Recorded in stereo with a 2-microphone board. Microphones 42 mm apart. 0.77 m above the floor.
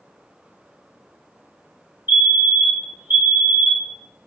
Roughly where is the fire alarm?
Right.